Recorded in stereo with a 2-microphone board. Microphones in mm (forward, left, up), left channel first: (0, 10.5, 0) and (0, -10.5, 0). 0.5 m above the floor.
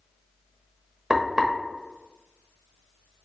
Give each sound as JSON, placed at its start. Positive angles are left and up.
{"t": 1.1, "sound": "frying", "side_deg": -25, "distance_m": 0.8}